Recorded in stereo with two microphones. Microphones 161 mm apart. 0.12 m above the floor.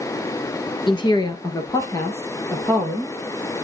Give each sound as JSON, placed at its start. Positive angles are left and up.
{"t": 0.9, "sound": "a woman speaking", "side_deg": 30, "distance_m": 1.9}